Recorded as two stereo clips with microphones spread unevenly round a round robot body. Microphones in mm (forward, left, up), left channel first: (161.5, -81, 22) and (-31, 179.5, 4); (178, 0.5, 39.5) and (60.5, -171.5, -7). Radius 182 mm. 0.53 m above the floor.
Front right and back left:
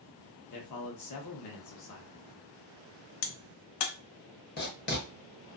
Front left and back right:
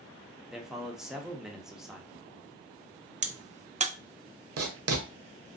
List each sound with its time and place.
0.5 s a man speaking: 50° right, 0.9 m
3.2 s a crack: 55° right, 0.5 m
4.6 s writing: 120° right, 0.6 m